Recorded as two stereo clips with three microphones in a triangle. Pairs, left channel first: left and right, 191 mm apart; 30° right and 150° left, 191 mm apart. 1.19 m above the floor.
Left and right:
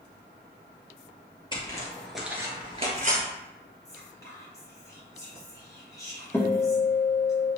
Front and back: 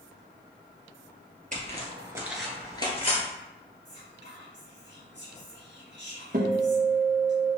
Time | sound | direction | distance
1.5 | footsteps | 140° left | 1.5 m
3.9 | whispering | 160° left | 1.5 m
6.3 | a guitar | 165° left | 0.9 m